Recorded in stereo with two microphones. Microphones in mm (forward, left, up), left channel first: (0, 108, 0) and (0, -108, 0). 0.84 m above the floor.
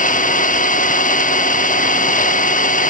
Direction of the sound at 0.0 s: 40° left (ahead or behind).